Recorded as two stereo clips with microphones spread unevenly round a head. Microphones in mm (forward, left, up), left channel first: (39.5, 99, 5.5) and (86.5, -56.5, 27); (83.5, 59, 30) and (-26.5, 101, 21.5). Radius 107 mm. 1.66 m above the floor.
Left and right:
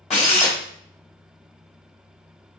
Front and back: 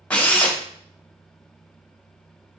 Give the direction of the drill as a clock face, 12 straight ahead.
10 o'clock.